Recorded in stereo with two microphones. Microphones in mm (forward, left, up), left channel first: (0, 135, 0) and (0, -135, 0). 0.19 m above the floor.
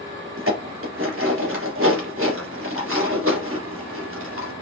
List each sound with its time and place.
0.4 s dishes clattering: 50° right (ahead or behind), 2.0 m